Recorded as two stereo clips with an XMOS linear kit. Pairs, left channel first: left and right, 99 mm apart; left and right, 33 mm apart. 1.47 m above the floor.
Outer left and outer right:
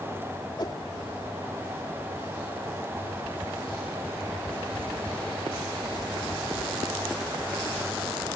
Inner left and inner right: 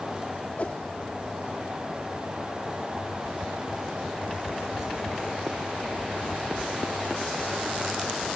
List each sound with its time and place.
0.6 s a whoosh: 45° left (ahead or behind)